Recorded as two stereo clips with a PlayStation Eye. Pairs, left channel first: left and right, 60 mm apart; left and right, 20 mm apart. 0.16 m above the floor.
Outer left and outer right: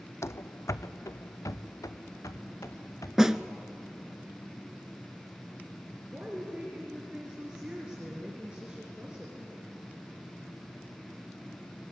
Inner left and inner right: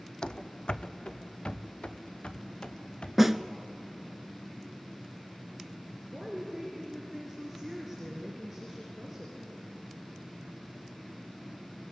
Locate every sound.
0.2 s running footsteps: 50° left (ahead or behind), 0.5 m; by 3.1 s 65° left (ahead or behind), 2.5 m
3.2 s a snare drum: 10° right (ahead or behind), 0.6 m
6.1 s a woman speaking: 15° right (ahead or behind), 3 m